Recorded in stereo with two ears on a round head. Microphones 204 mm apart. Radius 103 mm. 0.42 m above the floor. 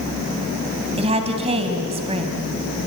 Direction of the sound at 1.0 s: 25° right (ahead or behind).